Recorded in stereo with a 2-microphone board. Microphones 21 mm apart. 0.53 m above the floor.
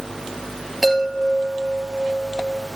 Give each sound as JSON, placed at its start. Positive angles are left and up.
{"t": 0.8, "sound": "a chime", "side_deg": 5, "distance_m": 5.5}